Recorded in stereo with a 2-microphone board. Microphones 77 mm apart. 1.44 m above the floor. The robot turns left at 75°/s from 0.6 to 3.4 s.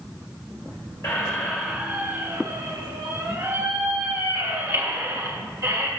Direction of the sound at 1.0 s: 40° left (ahead or behind).